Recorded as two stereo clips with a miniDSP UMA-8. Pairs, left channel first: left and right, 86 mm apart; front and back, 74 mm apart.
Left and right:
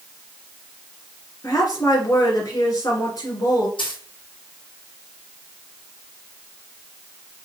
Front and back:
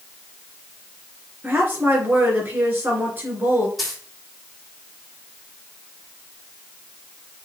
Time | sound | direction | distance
1.4 | a woman speaking | 125° left | 3 m
3.8 | a dropped coin | 90° left | 2.5 m